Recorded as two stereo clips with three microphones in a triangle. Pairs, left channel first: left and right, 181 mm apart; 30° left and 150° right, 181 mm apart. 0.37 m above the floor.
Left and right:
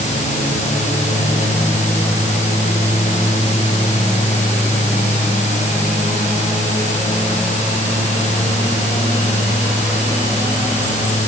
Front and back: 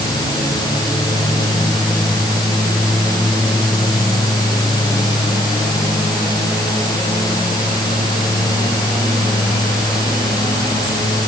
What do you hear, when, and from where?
Only background noise.